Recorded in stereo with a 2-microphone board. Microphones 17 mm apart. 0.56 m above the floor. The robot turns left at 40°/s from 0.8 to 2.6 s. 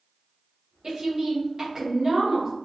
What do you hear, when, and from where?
0.8 s a woman speaking: 90° right, 0.9 m; by 2.5 s 155° right, 0.9 m